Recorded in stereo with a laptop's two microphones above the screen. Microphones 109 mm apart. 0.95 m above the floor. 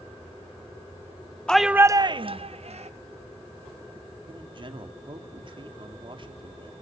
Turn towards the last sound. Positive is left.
turn(degrees=-50)  # may be behind; listen again after turning